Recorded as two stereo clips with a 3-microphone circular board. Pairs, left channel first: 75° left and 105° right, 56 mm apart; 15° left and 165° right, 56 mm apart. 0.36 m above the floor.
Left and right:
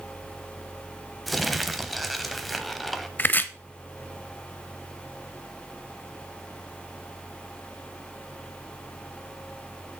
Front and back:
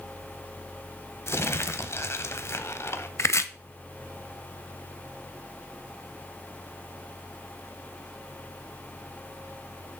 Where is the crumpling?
15° right, 0.8 m.